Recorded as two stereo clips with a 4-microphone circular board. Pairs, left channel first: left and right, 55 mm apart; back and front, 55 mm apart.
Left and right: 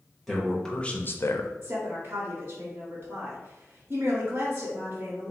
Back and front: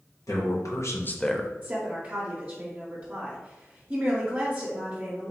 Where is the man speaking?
Straight behind, 1.2 m; by 1.5 s 75° left, 0.6 m.